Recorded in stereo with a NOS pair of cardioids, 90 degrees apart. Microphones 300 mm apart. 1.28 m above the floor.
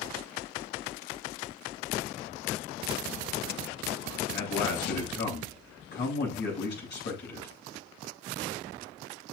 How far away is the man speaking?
About 8.5 m.